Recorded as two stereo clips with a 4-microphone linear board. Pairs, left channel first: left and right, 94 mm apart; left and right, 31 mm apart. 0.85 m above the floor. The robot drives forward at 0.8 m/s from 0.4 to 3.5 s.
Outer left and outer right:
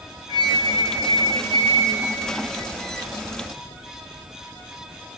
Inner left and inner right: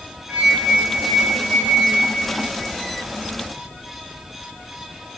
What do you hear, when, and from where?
0.3 s a flute: 50° right (ahead or behind), 3 m; by 2.7 s 30° right (ahead or behind), 4.5 m